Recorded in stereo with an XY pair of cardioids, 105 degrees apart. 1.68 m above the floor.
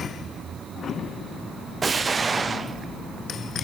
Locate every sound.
1.8 s an explosion: 30° right, 0.7 m